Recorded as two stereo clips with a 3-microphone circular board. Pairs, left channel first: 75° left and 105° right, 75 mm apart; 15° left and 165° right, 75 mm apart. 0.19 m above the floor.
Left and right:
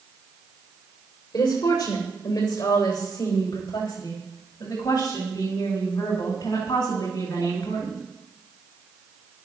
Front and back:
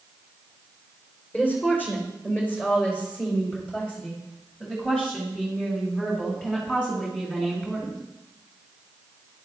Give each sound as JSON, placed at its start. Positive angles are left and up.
{"t": 1.3, "sound": "a woman speaking", "azimuth_deg": 80, "distance_m": 8.5}